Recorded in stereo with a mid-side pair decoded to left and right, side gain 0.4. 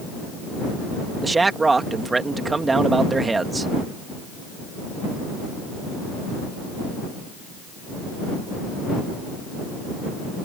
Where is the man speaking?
30° right.